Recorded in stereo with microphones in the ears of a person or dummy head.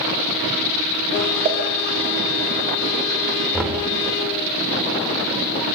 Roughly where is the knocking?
Centre.